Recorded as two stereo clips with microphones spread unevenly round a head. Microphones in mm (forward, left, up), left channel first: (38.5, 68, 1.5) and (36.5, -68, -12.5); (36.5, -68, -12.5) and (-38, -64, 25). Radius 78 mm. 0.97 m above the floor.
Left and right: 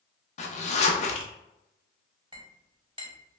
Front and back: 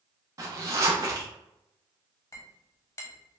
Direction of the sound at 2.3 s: 35° right.